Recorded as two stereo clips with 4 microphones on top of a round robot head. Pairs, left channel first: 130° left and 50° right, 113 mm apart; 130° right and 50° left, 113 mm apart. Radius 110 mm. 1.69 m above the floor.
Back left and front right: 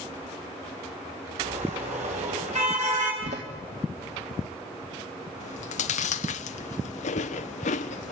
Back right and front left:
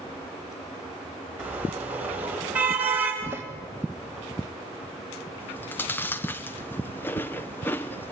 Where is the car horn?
30° right, 4.5 m.